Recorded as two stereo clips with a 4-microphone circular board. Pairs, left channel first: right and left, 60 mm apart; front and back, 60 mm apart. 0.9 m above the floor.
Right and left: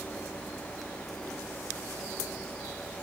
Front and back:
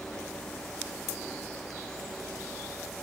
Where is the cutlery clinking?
No cutlery clinking in this recording.